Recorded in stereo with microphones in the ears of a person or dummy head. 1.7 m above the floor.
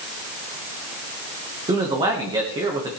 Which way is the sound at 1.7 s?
20° right (ahead or behind).